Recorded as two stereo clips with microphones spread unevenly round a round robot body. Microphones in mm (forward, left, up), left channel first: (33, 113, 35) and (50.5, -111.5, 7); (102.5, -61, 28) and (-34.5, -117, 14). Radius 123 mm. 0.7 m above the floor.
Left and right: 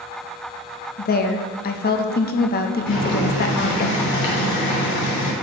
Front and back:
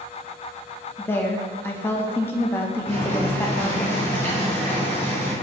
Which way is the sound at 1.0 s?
95° left.